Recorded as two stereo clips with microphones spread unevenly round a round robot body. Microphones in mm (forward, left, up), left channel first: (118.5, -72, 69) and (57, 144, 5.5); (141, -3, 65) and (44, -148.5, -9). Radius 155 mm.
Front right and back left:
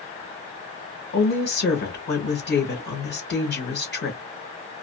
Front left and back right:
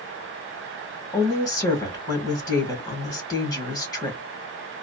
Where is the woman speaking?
25° right, 1.7 m.